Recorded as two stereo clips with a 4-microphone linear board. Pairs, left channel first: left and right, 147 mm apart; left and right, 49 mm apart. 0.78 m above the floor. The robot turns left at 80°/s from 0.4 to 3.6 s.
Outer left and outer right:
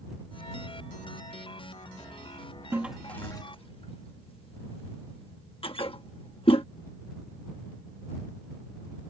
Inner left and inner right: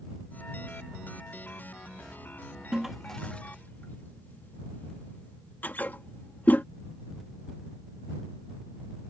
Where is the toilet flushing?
15° right (ahead or behind); by 6.6 s 40° left (ahead or behind).